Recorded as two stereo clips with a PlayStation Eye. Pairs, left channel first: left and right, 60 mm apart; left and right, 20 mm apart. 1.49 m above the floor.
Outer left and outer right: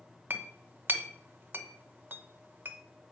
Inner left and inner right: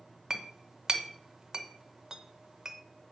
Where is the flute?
No flute in this recording.